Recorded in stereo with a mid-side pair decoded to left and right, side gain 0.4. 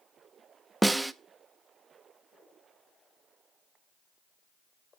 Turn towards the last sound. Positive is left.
turn(degrees=-15)